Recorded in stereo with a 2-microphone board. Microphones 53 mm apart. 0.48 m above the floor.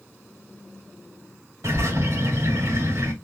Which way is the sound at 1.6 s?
85° right.